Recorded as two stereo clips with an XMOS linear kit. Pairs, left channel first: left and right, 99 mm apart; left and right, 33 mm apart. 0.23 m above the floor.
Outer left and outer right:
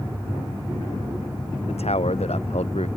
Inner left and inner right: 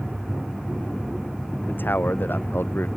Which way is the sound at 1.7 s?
85° left.